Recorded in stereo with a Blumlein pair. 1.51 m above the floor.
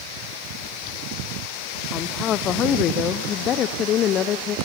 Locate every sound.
1.9 s a woman speaking: 30° left, 0.8 m